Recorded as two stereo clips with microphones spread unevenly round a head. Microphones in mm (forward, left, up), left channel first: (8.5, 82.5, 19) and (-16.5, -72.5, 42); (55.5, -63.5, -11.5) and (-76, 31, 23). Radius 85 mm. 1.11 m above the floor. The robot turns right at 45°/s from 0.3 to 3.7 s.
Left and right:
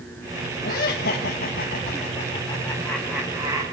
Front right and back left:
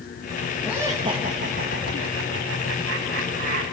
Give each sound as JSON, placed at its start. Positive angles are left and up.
{"t": 0.6, "sound": "laughter", "azimuth_deg": 55, "distance_m": 1.6}